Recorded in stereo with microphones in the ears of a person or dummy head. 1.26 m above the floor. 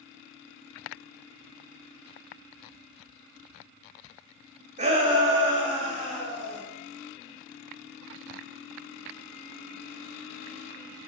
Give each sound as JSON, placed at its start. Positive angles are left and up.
{"t": 4.8, "sound": "a shout", "side_deg": -35, "distance_m": 0.7}